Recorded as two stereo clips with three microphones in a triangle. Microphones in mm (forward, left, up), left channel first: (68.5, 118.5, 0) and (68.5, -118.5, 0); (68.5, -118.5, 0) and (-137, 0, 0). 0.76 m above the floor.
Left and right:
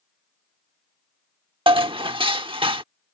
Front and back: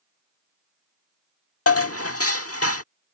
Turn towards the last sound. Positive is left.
turn(degrees=-20)